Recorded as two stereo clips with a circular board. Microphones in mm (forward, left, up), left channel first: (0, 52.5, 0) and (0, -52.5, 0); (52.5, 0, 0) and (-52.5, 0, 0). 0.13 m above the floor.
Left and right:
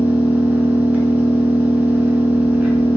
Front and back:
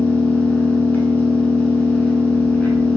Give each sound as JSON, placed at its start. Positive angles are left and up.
{"t": 0.0, "sound": "an engine running", "azimuth_deg": -45, "distance_m": 0.8}